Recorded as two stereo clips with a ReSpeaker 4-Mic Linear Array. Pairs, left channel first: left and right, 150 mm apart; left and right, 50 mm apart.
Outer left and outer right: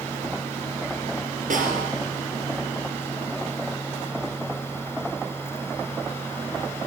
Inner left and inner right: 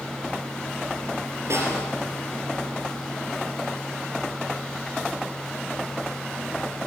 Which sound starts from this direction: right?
A snare drum, at 1.5 s.